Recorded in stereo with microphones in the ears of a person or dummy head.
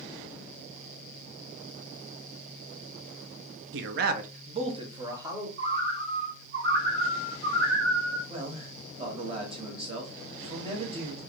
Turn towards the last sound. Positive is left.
turn(degrees=-30)  # may be behind; listen again after turning